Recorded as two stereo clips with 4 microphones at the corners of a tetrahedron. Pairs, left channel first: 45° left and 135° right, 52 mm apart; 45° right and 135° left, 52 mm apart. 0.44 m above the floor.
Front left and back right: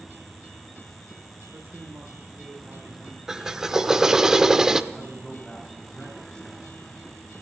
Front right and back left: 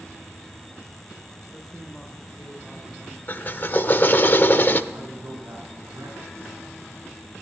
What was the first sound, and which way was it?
A man speaking, 130° right.